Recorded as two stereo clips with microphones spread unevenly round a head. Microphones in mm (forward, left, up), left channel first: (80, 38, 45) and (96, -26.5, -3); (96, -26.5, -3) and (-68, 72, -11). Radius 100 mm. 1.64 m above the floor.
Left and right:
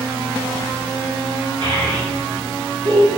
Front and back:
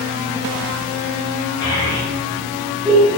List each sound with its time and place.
1.6 s a child speaking: 100° right, 3 m; by 3.1 s 125° right, 1.8 m